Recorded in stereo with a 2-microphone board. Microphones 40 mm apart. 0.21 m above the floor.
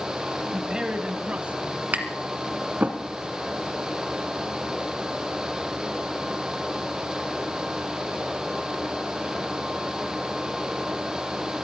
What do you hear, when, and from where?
0.5 s a man speaking: 10° right (ahead or behind), 1.0 m; by 1.8 s 40° right (ahead or behind), 1.5 m
1.9 s tapping: 45° right (ahead or behind), 1.8 m